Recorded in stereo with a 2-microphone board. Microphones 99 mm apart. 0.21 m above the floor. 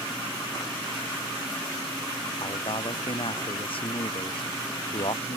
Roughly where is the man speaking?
Left.